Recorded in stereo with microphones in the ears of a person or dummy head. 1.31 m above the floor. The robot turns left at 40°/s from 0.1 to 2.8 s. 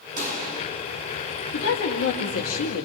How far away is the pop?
About 1.6 m.